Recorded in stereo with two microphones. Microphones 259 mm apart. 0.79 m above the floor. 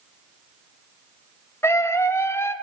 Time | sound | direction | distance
1.6 | a scream | 10° left (ahead or behind) | 0.8 m